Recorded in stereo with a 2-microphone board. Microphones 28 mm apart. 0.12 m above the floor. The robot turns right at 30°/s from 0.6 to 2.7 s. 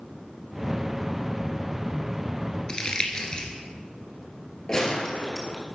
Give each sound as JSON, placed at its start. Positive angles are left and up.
{"t": 2.7, "sound": "crumpling", "side_deg": 30, "distance_m": 1.7}
{"t": 4.7, "sound": "a gunshot", "side_deg": 20, "distance_m": 2.0}